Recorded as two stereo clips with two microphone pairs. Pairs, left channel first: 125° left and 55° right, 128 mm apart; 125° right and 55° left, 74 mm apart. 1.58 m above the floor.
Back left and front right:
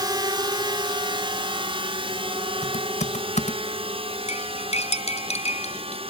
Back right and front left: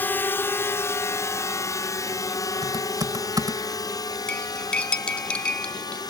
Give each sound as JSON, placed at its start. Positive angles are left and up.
{"t": 0.0, "sound": "a drone", "azimuth_deg": -85}
{"t": 2.6, "sound": "typing on a keyboard", "azimuth_deg": 90}
{"t": 4.3, "sound": "cutlery clinking", "azimuth_deg": 160}